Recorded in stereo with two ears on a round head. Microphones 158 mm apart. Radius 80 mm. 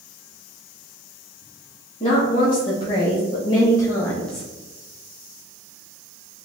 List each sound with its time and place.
2.0 s a woman speaking: 35° left (ahead or behind), 1.8 m; by 4.5 s centre (ahead or behind), 0.7 m